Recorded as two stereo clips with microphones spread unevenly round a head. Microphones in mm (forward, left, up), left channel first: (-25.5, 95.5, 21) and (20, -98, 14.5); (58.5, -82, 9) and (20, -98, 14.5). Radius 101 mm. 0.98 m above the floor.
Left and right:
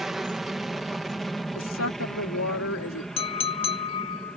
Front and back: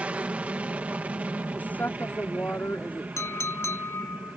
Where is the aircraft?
165° right; by 4.4 s 170° right.